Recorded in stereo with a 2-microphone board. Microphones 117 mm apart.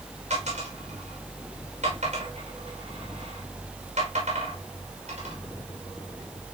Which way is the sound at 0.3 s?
85° right.